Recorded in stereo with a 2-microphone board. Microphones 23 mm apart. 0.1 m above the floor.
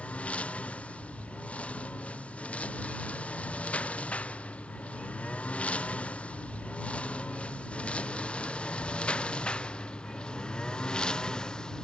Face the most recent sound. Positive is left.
turn(degrees=35)  # may be behind; listen again after turning